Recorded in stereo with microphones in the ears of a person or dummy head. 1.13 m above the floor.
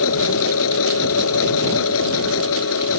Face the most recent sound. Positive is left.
turn(degrees=80)